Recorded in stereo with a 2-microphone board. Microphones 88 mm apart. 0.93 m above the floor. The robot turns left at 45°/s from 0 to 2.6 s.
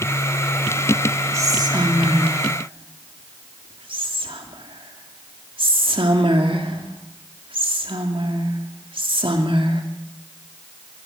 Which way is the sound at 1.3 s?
35° right (ahead or behind).